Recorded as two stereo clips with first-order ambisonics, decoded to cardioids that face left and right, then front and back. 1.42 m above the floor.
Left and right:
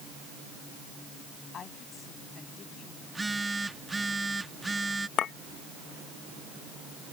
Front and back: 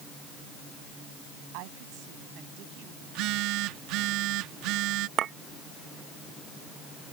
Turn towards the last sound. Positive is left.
turn(degrees=135)